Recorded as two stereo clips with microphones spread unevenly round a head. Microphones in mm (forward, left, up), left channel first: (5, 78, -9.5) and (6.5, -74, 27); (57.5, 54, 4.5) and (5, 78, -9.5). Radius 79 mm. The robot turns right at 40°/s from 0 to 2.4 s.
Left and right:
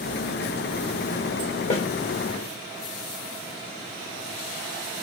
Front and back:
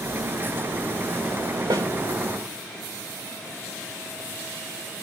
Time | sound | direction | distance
1.7 | a snare drum | 145° left | 1.2 m